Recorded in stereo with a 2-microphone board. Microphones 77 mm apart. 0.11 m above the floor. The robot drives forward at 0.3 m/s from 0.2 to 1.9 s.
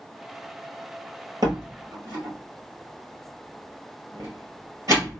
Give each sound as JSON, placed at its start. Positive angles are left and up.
{"t": 1.4, "sound": "a door slam", "side_deg": -55, "distance_m": 1.7}